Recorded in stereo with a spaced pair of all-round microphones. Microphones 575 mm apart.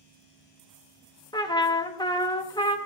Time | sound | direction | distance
1.3 | a trumpet | 10° left (ahead or behind) | 0.7 m